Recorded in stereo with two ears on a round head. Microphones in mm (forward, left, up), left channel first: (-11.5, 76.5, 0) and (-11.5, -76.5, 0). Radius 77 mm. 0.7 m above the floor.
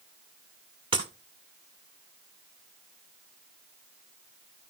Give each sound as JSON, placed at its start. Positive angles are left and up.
{"t": 0.9, "sound": "breaking glass", "side_deg": -30, "distance_m": 1.9}